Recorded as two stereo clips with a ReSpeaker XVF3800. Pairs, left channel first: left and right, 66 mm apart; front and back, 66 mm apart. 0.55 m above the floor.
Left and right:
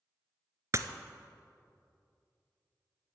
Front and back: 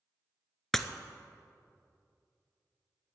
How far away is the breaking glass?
About 0.7 m.